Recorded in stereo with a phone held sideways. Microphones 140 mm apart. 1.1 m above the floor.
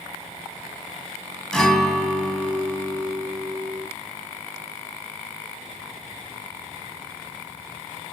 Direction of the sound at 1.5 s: 5° left (ahead or behind).